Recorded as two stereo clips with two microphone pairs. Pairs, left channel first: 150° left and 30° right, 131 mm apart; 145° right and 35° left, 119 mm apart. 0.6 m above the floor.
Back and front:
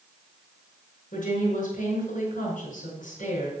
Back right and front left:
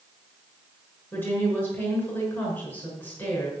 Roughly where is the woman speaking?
Behind left.